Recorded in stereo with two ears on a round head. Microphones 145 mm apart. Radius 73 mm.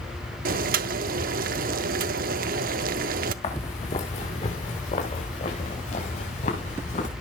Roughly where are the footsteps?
Left.